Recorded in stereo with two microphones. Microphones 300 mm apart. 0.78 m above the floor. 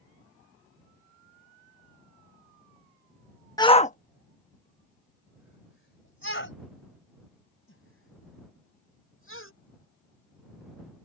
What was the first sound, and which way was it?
A shout, 10° left (ahead or behind).